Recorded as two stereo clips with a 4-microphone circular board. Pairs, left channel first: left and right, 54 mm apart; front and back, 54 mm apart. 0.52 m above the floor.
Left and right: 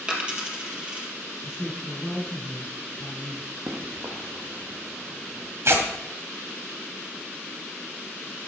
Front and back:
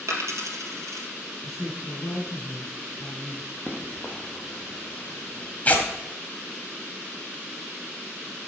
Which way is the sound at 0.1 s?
160° right.